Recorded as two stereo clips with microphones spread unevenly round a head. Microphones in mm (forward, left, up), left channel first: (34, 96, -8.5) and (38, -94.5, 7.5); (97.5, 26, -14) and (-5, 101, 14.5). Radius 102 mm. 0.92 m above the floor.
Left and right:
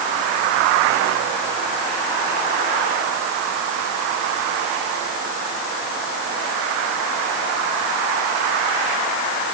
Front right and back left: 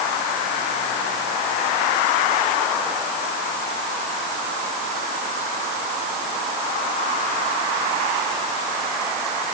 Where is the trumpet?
No trumpet in this recording.